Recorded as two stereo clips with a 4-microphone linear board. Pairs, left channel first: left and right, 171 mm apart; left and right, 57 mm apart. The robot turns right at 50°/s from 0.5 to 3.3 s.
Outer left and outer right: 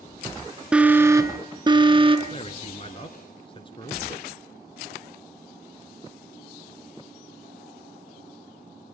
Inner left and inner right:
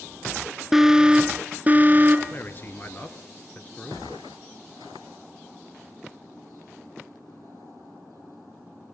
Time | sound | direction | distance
0.7 | an alarm | 170° right | 1.7 m
2.3 | a man speaking | 75° left | 1.7 m